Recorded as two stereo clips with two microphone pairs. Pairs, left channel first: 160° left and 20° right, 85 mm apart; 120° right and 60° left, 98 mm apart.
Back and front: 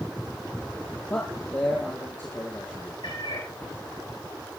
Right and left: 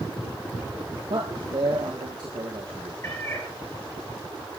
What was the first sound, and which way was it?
A man speaking, 95° left.